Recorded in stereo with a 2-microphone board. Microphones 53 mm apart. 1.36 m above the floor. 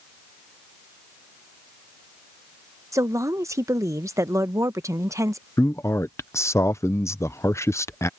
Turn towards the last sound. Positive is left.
turn(degrees=65)  # may be behind; listen again after turning